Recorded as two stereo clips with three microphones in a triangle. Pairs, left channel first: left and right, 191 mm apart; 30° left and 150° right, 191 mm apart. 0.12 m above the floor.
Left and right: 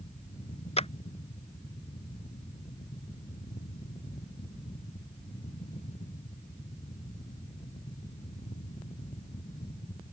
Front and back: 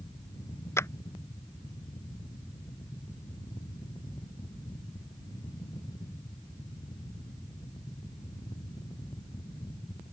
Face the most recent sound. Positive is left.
turn(degrees=95)